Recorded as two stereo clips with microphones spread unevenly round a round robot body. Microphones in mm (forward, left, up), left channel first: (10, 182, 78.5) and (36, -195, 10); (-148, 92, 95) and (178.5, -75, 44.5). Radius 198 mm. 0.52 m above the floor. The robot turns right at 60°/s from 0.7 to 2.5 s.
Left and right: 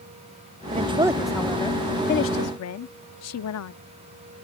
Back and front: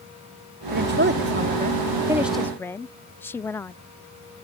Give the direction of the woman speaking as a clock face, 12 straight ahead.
2 o'clock.